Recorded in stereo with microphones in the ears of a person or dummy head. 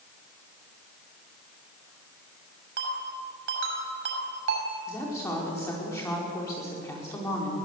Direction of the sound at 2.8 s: 75° right (ahead or behind).